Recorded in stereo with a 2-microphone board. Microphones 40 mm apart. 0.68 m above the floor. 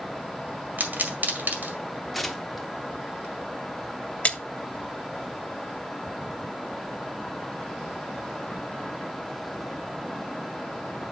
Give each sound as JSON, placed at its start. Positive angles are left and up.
{"t": 0.8, "sound": "a pop", "side_deg": -50, "distance_m": 1.9}
{"t": 2.1, "sound": "tearing paper", "side_deg": 5, "distance_m": 1.0}
{"t": 4.2, "sound": "a splash", "side_deg": 35, "distance_m": 0.7}